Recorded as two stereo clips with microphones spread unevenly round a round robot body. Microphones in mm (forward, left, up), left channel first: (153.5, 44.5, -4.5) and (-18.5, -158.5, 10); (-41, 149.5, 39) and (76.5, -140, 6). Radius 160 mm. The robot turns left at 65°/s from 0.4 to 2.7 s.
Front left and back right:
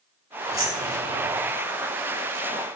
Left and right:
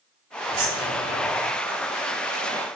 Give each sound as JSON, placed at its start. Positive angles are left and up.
{"t": 0.5, "sound": "keys jangling", "azimuth_deg": -50, "distance_m": 3.5}